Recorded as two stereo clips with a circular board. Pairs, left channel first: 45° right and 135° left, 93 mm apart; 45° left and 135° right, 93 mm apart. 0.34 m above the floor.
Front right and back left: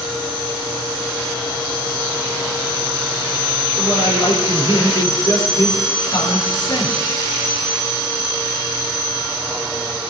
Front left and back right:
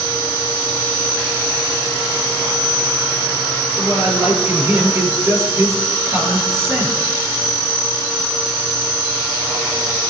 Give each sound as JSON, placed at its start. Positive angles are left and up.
{"t": 3.8, "sound": "a man speaking", "azimuth_deg": -75, "distance_m": 6.5}